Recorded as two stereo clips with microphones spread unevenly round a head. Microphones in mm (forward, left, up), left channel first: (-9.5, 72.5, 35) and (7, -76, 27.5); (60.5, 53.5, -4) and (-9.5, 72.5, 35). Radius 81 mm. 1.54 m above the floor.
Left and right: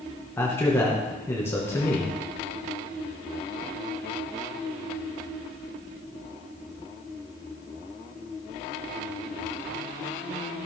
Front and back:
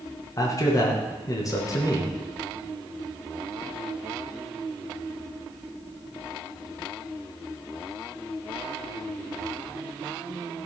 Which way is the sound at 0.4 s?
20° left.